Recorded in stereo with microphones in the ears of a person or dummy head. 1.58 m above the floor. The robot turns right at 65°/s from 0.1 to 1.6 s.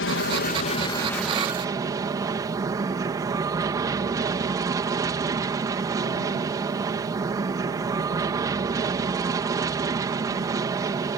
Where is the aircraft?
105° left; by 11.2 s 160° right.